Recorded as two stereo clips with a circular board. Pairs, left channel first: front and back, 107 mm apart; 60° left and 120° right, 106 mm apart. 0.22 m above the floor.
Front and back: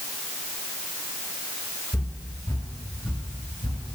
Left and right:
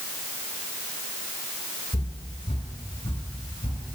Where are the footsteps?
70° left, 1.8 m; by 3.9 s 35° left, 4 m.